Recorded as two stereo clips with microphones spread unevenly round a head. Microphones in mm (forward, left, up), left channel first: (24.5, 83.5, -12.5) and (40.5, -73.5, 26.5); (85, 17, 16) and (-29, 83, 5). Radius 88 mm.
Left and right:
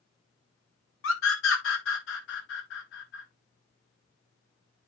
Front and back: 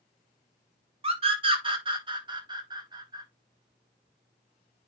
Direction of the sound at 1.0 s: 100° left.